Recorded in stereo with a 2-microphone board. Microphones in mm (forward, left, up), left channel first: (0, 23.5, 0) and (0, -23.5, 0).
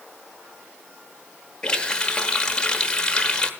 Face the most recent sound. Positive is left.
turn(degrees=15)  # may be behind; listen again after turning